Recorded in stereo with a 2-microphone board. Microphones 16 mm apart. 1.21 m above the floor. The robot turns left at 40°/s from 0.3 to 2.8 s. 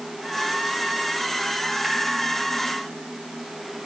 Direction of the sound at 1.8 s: 10° right (ahead or behind).